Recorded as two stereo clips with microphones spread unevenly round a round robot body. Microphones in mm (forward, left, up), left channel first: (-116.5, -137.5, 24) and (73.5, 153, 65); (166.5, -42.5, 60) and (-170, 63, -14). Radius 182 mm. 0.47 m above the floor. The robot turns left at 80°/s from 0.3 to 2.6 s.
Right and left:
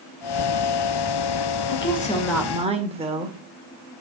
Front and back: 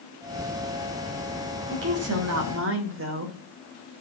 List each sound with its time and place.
1.7 s a woman speaking: 155° right, 1.9 m; by 3.4 s 130° left, 1.9 m